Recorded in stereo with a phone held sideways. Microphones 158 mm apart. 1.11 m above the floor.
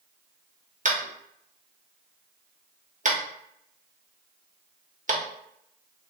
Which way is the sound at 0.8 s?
55° right (ahead or behind).